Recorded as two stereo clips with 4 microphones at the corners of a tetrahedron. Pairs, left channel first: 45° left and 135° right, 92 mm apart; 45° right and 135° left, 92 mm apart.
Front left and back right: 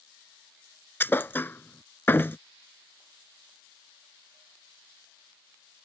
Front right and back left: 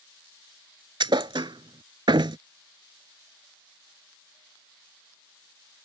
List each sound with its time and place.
1.0 s a thud: 110° left